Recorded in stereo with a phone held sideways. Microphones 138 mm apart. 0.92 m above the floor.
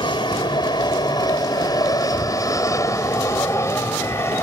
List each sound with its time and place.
0.0 s an aircraft: 35° left (ahead or behind); by 4.4 s 20° left (ahead or behind)